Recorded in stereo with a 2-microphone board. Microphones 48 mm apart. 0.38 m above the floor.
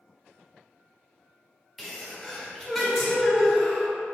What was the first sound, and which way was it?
A sneeze, centre (ahead or behind).